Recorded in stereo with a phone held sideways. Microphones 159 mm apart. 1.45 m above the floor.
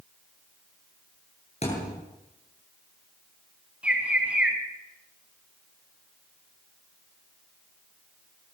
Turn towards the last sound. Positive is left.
turn(degrees=-5)  # may be behind; listen again after turning